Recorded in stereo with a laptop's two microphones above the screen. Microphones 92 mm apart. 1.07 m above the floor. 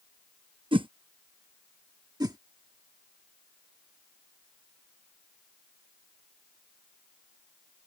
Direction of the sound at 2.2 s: 45° right (ahead or behind).